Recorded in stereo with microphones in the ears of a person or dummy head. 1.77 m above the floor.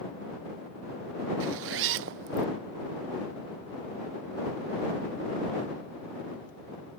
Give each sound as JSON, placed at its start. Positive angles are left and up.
{"t": 1.4, "sound": "a zipper", "side_deg": -70}